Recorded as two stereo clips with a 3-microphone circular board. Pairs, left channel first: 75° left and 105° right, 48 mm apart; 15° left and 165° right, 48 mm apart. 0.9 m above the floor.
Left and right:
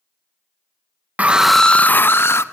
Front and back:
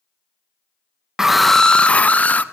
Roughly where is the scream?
Right.